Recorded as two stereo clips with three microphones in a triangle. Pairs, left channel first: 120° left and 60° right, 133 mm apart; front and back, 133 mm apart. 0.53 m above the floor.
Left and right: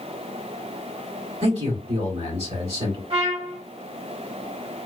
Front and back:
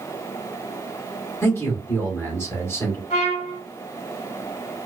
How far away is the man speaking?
About 1.4 m.